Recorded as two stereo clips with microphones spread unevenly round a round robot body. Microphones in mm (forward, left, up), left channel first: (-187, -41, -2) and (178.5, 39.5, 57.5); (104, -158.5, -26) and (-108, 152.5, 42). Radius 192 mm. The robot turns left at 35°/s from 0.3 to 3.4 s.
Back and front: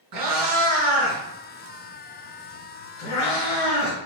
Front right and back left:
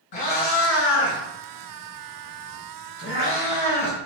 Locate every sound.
0.1 s a cat meowing: 20° right, 1.3 m; by 4.0 s 130° right, 1.3 m